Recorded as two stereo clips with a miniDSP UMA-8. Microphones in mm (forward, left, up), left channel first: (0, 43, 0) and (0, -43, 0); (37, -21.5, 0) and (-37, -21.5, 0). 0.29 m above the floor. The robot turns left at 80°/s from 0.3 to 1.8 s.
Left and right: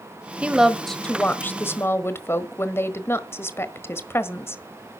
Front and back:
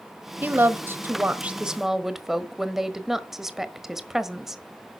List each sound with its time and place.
0.4 s a woman speaking: 150° right, 1.3 m; by 4.6 s 100° left, 1.3 m